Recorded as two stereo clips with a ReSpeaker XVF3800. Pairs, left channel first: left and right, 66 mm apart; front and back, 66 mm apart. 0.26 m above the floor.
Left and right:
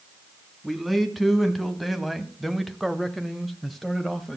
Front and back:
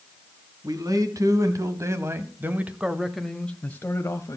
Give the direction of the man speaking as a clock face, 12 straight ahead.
6 o'clock.